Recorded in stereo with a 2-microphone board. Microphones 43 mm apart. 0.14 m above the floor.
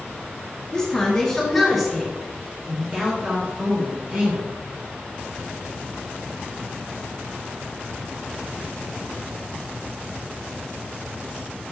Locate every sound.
0.7 s a woman speaking: 15° left (ahead or behind), 2.0 m; by 4.5 s 40° right (ahead or behind), 2.5 m